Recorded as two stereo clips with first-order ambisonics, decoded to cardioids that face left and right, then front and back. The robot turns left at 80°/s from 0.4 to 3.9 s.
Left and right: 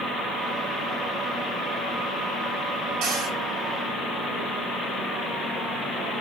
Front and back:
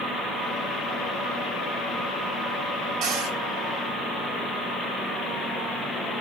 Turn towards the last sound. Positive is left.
turn(degrees=155)